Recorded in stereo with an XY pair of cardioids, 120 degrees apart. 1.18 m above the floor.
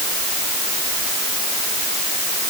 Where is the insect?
No insect in this recording.